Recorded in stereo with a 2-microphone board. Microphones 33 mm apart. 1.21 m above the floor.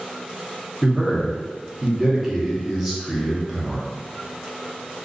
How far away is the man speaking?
About 0.8 m.